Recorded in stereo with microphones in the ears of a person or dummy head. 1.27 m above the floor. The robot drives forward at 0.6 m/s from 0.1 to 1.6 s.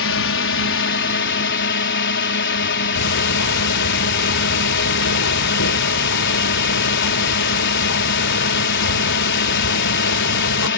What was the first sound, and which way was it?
A drone, 55° left (ahead or behind).